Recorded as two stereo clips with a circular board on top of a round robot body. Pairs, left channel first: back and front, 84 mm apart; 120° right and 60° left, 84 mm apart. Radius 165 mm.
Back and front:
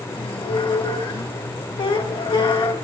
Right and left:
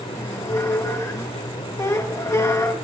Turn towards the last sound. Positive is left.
turn(degrees=-170)